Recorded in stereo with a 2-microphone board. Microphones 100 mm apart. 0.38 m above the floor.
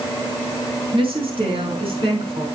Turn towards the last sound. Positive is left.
turn(degrees=-65)  # may be behind; listen again after turning